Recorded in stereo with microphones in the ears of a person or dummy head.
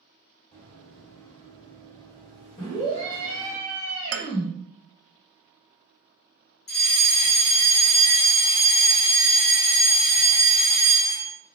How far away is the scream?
About 1.4 m.